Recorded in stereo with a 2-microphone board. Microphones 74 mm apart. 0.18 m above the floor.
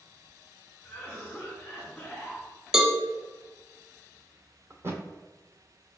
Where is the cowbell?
10° right (ahead or behind), 0.6 m.